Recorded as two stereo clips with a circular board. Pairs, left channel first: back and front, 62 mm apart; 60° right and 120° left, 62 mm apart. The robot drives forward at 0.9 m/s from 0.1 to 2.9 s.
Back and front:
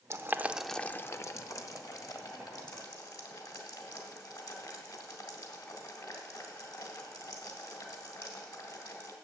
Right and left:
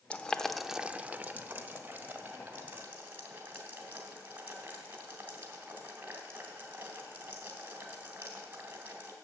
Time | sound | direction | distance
0.1 | boiling | 5° left | 0.7 m